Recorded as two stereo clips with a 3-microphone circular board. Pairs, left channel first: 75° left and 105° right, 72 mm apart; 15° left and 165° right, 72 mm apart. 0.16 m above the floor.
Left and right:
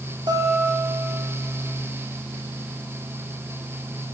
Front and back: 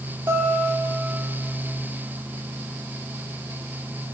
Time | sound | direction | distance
0.3 | a guitar | 110° right | 2.5 m